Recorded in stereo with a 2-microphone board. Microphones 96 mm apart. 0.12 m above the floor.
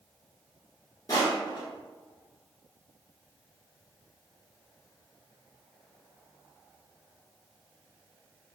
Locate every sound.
1.1 s crushing: 35° left (ahead or behind), 1.1 m